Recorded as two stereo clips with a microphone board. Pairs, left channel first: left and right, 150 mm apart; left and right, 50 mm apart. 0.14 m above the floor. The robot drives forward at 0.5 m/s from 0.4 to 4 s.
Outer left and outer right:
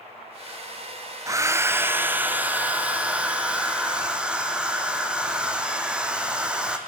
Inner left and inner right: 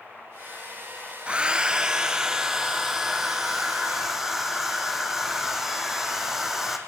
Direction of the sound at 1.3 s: 20° right (ahead or behind).